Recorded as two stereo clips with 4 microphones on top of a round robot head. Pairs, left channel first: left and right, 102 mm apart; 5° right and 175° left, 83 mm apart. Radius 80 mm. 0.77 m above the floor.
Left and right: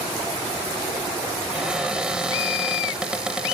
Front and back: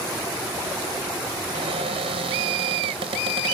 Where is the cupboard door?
170° right.